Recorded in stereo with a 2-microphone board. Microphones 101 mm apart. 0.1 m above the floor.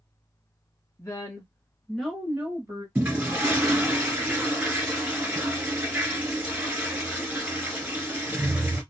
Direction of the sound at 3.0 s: 15° right (ahead or behind).